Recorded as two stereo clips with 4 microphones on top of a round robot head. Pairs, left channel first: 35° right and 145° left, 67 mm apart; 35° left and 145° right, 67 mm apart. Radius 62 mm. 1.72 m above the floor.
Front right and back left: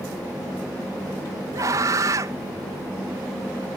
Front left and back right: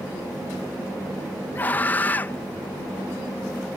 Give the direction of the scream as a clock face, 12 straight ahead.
9 o'clock.